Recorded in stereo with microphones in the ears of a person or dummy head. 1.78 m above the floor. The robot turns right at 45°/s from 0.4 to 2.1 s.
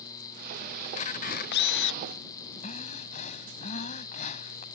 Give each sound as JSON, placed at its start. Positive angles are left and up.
{"t": 0.8, "sound": "a camera shutter", "azimuth_deg": 35}
{"t": 2.6, "sound": "breathing", "side_deg": 40}